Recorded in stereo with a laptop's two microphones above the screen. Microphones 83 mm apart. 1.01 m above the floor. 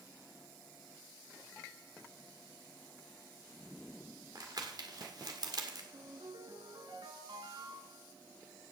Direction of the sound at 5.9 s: 75° right (ahead or behind).